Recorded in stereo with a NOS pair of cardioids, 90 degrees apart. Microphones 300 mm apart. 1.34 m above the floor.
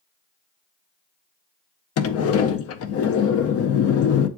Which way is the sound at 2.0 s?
55° left.